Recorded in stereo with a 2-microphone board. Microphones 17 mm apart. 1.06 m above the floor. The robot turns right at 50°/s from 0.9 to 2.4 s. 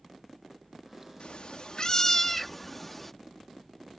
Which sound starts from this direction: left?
A cat meowing, at 1.2 s.